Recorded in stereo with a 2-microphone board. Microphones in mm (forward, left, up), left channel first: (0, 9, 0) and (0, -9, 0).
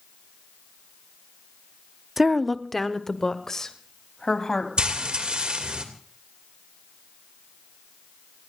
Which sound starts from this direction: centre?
A woman speaking, at 2.2 s.